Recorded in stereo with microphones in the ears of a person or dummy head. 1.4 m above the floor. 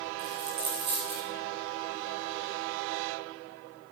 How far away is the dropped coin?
About 1.8 m.